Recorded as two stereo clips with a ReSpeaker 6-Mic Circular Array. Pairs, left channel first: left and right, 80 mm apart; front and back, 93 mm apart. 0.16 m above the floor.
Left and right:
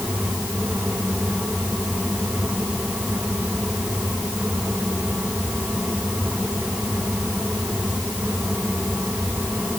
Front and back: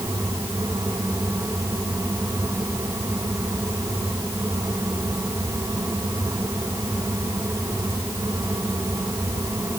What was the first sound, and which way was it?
Only background noise.